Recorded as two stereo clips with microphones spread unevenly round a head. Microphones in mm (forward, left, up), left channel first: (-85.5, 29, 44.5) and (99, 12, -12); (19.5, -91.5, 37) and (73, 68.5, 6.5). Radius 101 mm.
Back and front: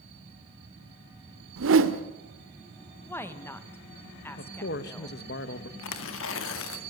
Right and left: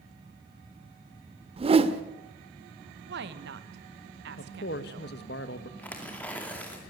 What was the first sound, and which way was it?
A whoosh, 15° left.